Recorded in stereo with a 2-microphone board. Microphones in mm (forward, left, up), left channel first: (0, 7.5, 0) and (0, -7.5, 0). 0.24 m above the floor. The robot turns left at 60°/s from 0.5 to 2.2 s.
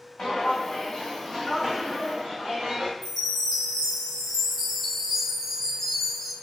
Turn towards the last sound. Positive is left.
turn(degrees=15)  # may be behind; listen again after turning